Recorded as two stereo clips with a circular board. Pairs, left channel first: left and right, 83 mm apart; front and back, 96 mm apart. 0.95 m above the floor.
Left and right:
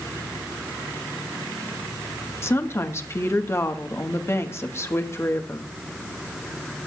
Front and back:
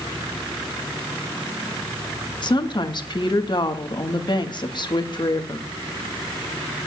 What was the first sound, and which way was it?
A woman speaking, 35° left.